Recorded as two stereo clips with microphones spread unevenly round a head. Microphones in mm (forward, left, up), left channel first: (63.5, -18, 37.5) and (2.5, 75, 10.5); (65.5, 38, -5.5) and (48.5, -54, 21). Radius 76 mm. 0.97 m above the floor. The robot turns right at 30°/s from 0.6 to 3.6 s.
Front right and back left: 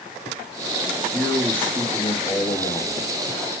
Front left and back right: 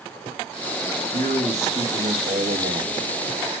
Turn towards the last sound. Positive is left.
turn(degrees=-75)